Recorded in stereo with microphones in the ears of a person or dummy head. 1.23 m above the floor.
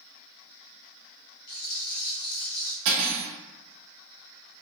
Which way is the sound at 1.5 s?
50° left (ahead or behind).